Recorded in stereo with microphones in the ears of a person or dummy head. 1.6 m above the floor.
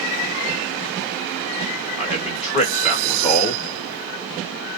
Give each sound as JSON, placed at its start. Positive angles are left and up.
{"t": 2.0, "sound": "a man speaking", "side_deg": 25, "distance_m": 2.5}